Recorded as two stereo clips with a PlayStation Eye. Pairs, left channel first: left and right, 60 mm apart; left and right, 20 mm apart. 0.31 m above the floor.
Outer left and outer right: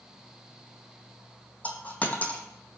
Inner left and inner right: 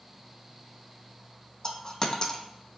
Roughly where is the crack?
No crack in this recording.